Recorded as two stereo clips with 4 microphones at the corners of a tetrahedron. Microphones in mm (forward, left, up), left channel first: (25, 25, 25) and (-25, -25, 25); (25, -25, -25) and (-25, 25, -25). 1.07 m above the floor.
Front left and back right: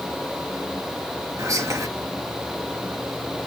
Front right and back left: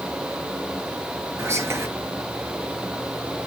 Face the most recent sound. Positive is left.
turn(degrees=-175)